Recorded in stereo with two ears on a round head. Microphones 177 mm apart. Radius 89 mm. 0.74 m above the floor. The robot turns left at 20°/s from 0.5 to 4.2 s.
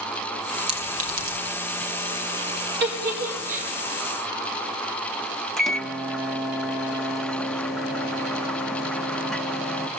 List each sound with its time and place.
0.7 s a clink: 30° right (ahead or behind), 5 m; by 1.4 s 45° right (ahead or behind), 5 m
2.8 s a giggle: 60° right (ahead or behind), 5 m; by 3.7 s 40° right (ahead or behind), 5 m
5.6 s a microwave: centre (ahead or behind), 1.1 m